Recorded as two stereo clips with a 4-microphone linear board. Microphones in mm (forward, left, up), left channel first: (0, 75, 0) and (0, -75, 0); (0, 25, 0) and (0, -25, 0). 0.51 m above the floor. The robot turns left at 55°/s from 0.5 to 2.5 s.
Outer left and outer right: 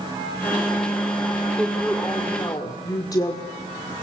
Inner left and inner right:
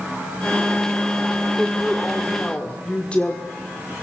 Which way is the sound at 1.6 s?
165° right.